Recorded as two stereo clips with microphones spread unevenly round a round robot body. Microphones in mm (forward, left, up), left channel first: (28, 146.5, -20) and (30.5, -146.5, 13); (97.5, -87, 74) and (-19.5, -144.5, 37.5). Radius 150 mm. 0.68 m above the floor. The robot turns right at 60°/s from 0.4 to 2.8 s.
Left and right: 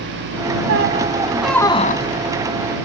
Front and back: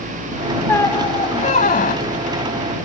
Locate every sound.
0.7 s a squeak: 45° right; by 2.3 s 50° left